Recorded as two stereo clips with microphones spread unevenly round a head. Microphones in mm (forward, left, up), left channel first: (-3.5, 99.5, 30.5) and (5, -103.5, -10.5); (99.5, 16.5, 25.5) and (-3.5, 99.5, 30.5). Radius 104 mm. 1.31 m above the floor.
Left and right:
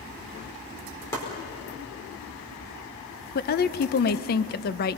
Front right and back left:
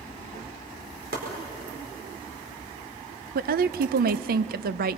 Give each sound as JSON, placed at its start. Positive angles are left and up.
{"t": 1.1, "sound": "chopping", "azimuth_deg": 170, "distance_m": 4.5}
{"t": 3.4, "sound": "a woman speaking", "azimuth_deg": 140, "distance_m": 0.6}